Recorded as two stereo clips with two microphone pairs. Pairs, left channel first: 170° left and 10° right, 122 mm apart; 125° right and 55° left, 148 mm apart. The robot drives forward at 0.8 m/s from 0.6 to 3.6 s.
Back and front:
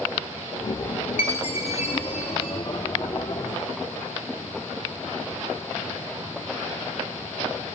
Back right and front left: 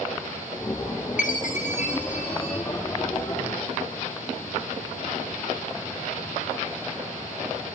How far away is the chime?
About 0.9 m.